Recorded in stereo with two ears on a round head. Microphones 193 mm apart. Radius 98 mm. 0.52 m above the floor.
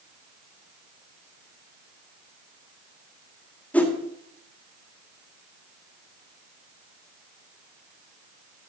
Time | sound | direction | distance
3.7 | a whoosh | 5° left (ahead or behind) | 1.8 m